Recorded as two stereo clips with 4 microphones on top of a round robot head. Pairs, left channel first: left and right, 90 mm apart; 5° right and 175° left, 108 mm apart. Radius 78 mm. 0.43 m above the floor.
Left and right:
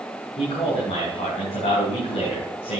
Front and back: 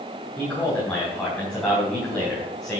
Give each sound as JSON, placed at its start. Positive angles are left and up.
{"t": 0.4, "sound": "a man speaking", "azimuth_deg": 75, "distance_m": 4.0}